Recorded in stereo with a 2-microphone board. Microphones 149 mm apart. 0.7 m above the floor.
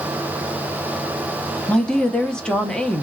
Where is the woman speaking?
5° left (ahead or behind), 0.5 m.